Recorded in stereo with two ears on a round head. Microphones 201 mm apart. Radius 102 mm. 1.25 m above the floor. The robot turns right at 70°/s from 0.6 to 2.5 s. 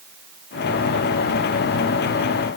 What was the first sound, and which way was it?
Only background noise.